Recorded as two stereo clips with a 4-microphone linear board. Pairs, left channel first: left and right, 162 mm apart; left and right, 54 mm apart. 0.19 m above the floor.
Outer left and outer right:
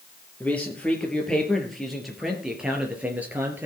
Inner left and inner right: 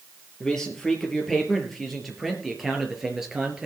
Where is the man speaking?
10° left (ahead or behind), 4.5 m; by 3.7 s 10° right (ahead or behind), 3.5 m.